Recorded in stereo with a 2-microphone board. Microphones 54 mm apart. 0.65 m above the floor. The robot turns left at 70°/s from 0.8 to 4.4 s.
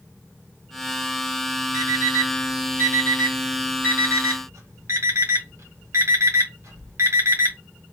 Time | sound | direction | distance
1.7 | an alarm clock | 55° left (ahead or behind) | 1.6 m